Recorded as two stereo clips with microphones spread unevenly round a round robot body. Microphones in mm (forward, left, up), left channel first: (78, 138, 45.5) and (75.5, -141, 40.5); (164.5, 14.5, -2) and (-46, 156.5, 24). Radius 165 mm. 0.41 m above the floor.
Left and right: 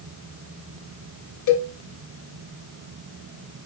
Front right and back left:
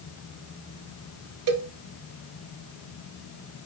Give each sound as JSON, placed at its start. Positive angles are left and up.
{"t": 1.5, "sound": "a cowbell", "azimuth_deg": 135, "distance_m": 0.5}